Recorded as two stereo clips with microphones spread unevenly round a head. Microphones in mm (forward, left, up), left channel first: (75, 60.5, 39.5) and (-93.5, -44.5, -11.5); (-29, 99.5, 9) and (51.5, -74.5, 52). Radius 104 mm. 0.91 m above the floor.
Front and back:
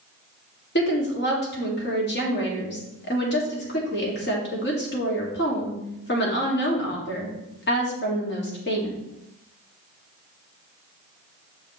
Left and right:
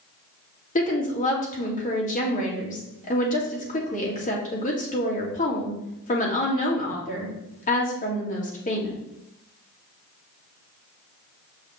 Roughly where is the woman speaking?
Left.